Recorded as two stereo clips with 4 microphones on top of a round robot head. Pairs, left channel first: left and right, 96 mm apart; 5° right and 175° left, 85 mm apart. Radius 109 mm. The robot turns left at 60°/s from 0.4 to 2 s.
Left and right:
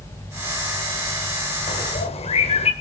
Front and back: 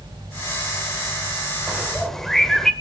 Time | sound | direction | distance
1.7 | a bird | 100° left | 1.7 m